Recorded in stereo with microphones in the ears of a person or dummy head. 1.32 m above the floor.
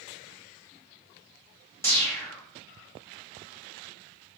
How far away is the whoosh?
About 1.2 m.